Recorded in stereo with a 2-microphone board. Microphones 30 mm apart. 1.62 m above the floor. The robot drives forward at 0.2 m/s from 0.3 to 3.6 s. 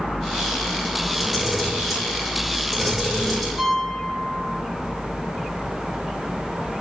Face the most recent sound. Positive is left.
turn(degrees=0)  # may be behind; listen again after turning